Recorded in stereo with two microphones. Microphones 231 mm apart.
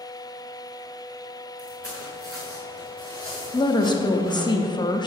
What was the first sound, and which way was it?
Footsteps, 75° right (ahead or behind).